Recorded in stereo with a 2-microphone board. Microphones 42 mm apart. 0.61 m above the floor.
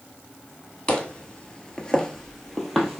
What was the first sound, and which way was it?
Footsteps, 20° left (ahead or behind).